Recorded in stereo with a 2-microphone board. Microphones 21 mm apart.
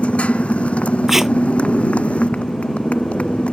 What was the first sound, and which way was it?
A motorcycle, 75° left (ahead or behind).